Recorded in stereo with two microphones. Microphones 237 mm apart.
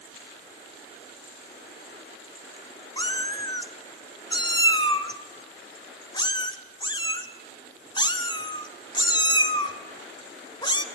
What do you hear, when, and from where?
3.0 s a cat meowing: 20° left (ahead or behind), 1.4 m